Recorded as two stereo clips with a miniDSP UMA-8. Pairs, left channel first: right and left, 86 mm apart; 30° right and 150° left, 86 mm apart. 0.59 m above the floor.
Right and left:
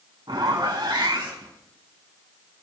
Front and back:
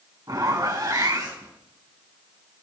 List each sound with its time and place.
0.3 s a zipper: 115° left, 4 m